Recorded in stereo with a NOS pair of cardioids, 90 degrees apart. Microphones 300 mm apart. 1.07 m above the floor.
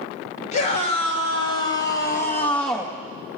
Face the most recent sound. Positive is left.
turn(degrees=0)